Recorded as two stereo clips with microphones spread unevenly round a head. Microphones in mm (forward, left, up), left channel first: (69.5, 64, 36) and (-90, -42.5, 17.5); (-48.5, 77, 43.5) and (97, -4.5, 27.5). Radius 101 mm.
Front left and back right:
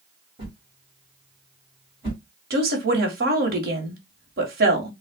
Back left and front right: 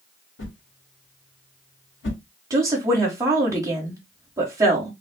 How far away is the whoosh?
About 2 m.